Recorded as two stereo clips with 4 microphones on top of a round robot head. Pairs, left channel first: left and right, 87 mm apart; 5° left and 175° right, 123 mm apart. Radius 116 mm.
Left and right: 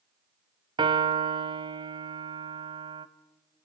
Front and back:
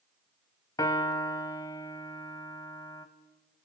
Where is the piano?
65° right, 0.8 m.